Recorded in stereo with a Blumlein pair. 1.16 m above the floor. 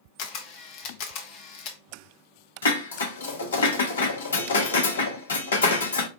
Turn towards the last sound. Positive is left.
turn(degrees=65)